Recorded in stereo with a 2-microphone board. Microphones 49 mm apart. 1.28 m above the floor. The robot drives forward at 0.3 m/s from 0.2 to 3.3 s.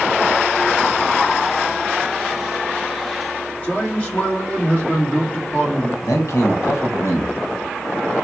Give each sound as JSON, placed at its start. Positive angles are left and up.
{"t": 3.6, "sound": "a man speaking", "side_deg": 30, "distance_m": 1.9}
{"t": 6.0, "sound": "a man speaking", "side_deg": 80, "distance_m": 1.2}